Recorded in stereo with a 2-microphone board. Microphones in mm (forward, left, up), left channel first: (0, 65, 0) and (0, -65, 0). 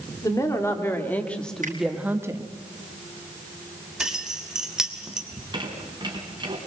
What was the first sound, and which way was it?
A woman speaking, 25° left (ahead or behind).